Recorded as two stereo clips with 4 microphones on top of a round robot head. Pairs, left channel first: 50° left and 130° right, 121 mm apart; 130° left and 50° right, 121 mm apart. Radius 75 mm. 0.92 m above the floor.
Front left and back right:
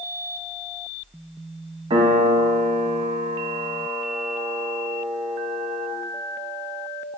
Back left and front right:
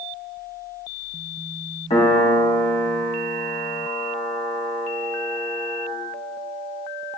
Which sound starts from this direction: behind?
A piano, at 1.9 s.